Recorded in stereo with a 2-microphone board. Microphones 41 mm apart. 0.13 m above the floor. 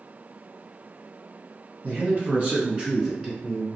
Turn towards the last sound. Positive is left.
turn(degrees=5)  # may be behind; listen again after turning